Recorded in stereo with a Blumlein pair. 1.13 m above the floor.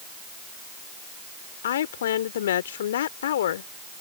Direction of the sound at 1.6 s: 60° left.